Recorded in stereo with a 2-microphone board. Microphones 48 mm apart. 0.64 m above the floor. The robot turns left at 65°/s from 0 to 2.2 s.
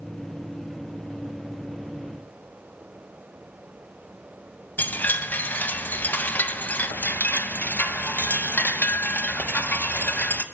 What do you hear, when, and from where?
4.8 s a chime: 40° left (ahead or behind), 0.6 m